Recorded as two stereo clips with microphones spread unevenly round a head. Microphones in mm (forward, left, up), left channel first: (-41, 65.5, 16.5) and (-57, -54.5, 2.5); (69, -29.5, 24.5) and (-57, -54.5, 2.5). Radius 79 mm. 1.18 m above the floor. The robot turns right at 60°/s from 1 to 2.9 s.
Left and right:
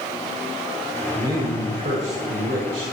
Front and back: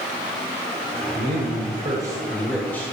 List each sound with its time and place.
1.1 s a man speaking: 165° right, 7 m; by 2.9 s 60° right, 7 m